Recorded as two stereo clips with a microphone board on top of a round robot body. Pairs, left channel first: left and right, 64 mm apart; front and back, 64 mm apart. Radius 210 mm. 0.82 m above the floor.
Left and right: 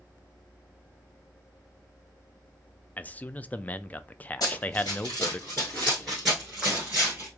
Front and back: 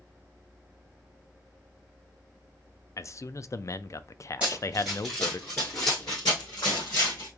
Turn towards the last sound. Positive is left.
turn(degrees=-20)